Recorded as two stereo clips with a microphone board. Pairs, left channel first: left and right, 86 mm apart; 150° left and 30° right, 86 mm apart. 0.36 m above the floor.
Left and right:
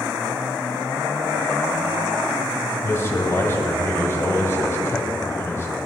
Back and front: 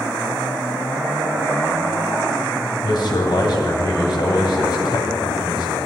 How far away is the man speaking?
About 1.6 m.